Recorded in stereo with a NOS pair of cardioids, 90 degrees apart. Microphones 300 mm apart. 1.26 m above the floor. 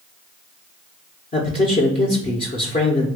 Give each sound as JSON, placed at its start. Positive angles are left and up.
{"t": 1.3, "sound": "a man speaking", "azimuth_deg": 25, "distance_m": 1.0}